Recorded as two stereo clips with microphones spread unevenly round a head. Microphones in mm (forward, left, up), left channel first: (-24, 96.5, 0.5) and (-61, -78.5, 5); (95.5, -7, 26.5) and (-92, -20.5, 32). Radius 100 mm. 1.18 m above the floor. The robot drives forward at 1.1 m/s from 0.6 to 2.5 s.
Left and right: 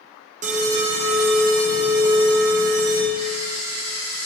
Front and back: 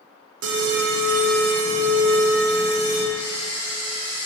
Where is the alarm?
150° right, 1.2 m; by 3.0 s 170° right, 3 m.